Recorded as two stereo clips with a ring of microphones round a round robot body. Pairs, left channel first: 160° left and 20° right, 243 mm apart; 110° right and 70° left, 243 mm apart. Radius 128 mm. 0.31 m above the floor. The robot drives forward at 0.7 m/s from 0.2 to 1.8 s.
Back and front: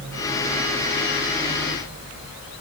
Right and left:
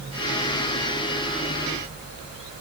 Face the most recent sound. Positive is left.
No sound to turn to.